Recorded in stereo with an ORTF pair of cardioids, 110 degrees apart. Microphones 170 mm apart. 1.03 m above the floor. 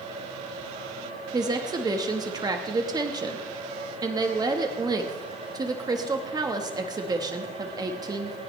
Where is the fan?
45° right, 7 m.